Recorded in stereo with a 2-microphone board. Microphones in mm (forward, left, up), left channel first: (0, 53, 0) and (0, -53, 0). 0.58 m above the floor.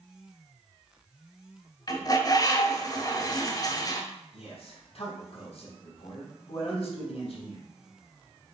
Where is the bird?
35° left (ahead or behind), 1.7 m.